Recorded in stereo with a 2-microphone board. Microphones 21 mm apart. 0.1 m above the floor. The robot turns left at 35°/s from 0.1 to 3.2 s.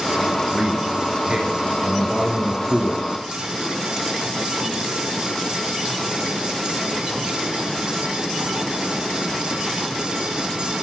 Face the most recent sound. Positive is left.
turn(degrees=-145)